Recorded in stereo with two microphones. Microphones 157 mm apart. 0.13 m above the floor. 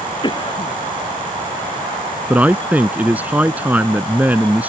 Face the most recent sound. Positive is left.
turn(degrees=-10)  # may be behind; listen again after turning